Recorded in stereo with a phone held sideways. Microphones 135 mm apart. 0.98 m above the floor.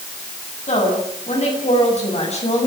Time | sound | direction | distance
0.7 | a woman speaking | 60° left (ahead or behind) | 10 m